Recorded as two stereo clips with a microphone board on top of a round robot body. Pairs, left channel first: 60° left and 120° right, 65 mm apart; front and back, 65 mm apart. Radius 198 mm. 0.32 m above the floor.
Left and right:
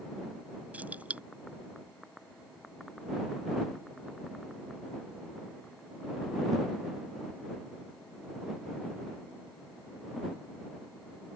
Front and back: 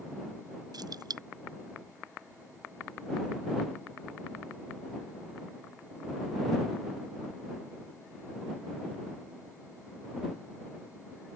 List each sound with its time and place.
0.7 s keys jangling: 170° left